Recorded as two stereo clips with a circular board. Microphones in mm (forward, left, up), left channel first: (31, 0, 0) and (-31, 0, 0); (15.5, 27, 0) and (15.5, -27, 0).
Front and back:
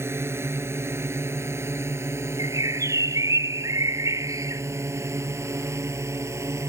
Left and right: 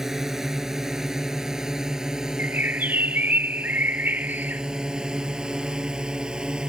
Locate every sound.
0.0 s a drone: 170° right; by 6.7 s 160° right
2.4 s a bird: 150° right